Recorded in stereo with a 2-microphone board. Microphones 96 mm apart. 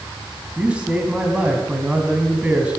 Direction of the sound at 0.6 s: 10° right (ahead or behind).